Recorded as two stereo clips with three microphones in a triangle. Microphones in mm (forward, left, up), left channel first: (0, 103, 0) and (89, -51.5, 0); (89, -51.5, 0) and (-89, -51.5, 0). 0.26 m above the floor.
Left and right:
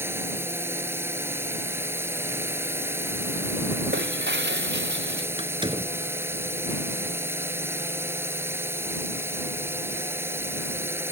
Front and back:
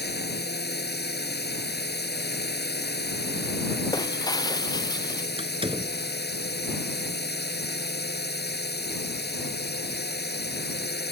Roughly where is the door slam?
Behind right.